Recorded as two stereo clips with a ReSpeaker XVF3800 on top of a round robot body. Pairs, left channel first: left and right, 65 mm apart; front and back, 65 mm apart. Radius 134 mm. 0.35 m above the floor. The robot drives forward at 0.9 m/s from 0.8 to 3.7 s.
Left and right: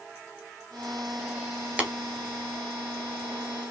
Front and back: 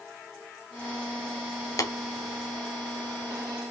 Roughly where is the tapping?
Ahead.